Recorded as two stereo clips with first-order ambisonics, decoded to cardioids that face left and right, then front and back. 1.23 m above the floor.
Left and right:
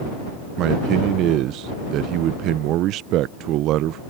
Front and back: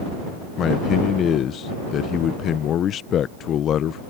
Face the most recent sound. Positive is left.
turn(degrees=-55)